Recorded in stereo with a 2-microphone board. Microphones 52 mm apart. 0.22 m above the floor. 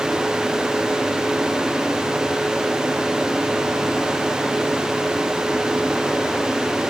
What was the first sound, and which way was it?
Only background noise.